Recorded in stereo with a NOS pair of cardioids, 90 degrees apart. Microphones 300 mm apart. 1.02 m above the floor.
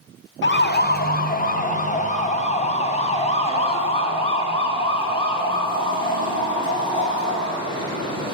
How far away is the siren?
About 2.5 m.